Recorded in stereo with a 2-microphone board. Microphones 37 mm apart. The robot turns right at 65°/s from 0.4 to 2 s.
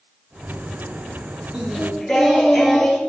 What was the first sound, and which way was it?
Singing, 25° right (ahead or behind).